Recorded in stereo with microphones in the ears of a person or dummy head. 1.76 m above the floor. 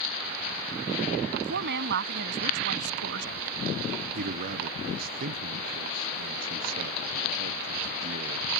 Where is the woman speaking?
65° right (ahead or behind).